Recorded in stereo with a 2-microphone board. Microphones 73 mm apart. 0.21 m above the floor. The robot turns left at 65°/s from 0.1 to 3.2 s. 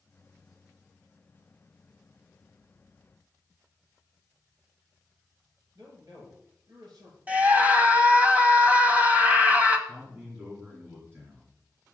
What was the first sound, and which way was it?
A man speaking, 60° right (ahead or behind).